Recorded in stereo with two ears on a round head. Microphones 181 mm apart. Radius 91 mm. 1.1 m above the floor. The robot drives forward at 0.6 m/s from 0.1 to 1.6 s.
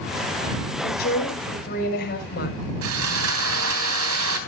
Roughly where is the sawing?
Right.